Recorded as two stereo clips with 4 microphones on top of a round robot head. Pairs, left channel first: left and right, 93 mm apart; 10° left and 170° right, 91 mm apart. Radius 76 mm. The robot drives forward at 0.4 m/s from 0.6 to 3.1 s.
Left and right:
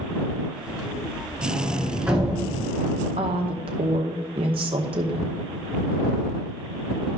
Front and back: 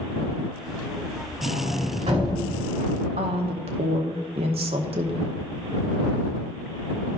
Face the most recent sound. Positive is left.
turn(degrees=-135)